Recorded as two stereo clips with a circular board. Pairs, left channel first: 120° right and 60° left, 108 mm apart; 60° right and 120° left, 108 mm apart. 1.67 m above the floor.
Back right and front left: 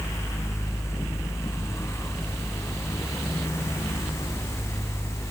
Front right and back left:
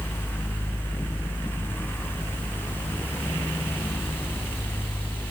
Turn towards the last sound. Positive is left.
No sound to turn to.